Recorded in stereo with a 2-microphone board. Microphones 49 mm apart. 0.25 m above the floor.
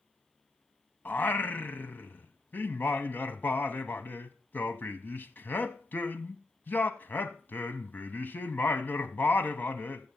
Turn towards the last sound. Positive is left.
turn(degrees=45)  # may be behind; listen again after turning